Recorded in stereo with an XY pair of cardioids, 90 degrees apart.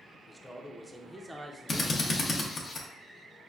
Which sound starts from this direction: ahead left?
A drill, at 1.7 s.